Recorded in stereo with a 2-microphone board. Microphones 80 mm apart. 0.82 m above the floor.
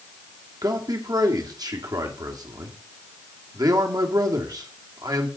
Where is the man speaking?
55° right (ahead or behind), 1.7 m.